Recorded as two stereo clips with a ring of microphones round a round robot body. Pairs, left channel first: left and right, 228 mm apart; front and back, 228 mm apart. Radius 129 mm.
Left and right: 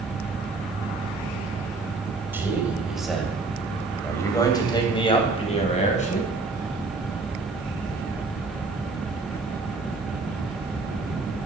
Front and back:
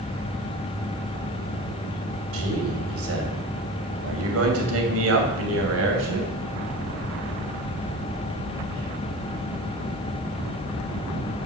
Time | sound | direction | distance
2.3 | a man speaking | 170° right | 3 m